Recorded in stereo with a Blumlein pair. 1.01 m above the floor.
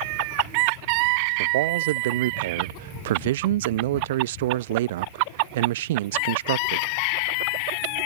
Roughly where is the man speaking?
Ahead right.